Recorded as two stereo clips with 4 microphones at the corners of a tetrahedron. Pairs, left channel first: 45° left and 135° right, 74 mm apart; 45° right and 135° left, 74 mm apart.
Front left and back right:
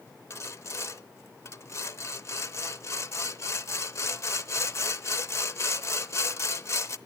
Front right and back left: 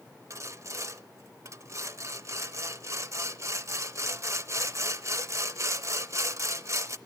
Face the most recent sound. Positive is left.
turn(degrees=90)